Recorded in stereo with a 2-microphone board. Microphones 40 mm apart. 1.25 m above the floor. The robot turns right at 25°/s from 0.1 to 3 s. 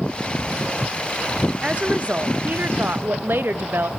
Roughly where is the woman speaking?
Behind right.